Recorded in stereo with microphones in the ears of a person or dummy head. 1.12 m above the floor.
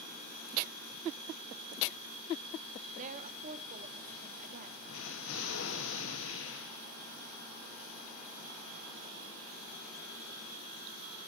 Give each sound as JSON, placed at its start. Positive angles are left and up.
{"t": 3.0, "sound": "a woman speaking", "side_deg": -40, "distance_m": 1.8}
{"t": 4.9, "sound": "an explosion", "side_deg": 65, "distance_m": 1.7}